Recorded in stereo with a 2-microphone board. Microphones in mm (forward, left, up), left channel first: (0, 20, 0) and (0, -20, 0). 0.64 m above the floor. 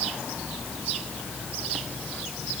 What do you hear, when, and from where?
Only background noise.